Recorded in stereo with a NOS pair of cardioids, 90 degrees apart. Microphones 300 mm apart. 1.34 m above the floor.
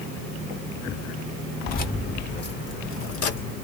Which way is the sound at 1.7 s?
30° left.